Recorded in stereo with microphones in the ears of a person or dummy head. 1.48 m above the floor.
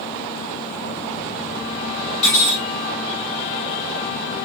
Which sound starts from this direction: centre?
Cutlery clinking, at 2.2 s.